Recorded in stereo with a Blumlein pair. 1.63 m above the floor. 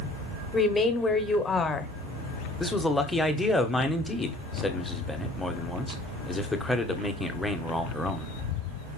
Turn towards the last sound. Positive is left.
turn(degrees=5)